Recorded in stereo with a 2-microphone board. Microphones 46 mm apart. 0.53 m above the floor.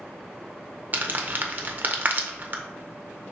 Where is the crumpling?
45° right (ahead or behind), 0.5 m.